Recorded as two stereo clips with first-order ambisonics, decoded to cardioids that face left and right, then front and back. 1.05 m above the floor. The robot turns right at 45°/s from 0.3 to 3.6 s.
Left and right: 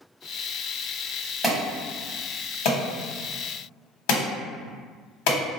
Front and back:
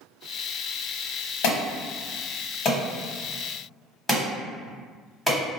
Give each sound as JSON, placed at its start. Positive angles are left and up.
{"t": 1.4, "sound": "an alarm", "azimuth_deg": 0, "distance_m": 1.3}